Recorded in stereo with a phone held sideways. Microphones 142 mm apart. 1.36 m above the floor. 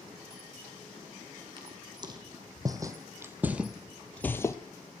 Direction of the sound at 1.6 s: 35° right (ahead or behind).